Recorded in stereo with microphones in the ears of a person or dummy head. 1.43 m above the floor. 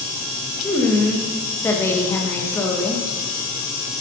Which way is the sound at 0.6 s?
15° left (ahead or behind).